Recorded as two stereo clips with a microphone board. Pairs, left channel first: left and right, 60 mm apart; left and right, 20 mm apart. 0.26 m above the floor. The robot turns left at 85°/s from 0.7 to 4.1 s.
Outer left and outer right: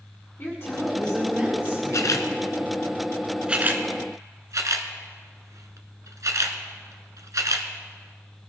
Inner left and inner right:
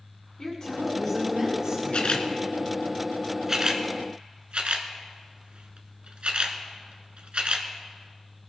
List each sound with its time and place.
0.4 s a woman speaking: 50° left, 2.5 m; by 2.2 s 85° right, 2.5 m
1.9 s a camera shutter: 65° left (ahead or behind), 1.1 m; by 7.7 s 65° right (ahead or behind), 1.1 m